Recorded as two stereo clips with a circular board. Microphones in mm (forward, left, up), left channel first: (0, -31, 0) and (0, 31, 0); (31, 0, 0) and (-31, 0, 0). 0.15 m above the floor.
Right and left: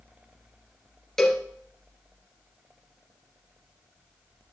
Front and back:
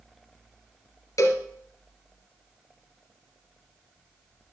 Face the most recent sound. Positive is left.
turn(degrees=-10)